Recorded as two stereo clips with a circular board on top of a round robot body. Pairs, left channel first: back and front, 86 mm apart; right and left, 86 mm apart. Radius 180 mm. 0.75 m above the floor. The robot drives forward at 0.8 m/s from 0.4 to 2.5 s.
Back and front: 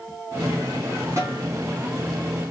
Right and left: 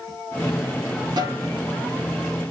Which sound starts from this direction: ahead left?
A snare drum, at 1.2 s.